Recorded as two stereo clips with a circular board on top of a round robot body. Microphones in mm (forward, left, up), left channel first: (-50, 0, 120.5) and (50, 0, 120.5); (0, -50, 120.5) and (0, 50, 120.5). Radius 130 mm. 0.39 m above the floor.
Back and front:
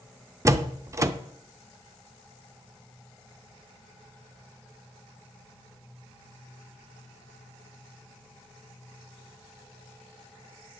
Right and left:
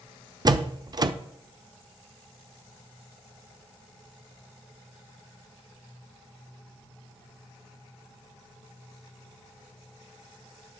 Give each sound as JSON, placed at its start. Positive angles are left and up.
{"t": 0.5, "sound": "a door slam", "azimuth_deg": 55, "distance_m": 0.8}